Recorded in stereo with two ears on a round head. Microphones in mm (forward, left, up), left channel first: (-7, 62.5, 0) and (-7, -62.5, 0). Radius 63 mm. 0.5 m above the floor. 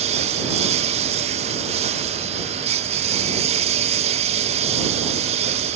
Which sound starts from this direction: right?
A lawn mower, at 0.0 s.